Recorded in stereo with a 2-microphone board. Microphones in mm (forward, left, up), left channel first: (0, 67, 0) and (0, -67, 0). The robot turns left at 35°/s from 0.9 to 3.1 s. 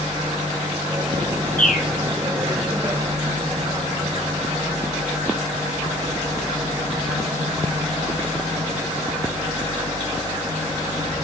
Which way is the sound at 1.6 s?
75° left (ahead or behind).